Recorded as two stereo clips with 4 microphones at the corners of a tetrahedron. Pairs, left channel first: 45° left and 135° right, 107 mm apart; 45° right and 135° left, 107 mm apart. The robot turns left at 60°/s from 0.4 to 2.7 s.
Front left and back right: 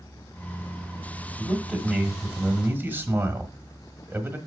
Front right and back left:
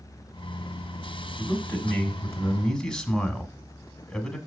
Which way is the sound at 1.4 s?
35° right.